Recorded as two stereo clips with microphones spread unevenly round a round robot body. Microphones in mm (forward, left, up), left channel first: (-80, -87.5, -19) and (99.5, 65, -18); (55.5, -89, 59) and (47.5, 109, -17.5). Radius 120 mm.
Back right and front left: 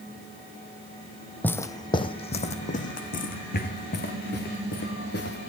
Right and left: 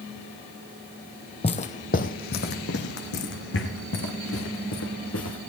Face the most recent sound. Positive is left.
turn(degrees=-95)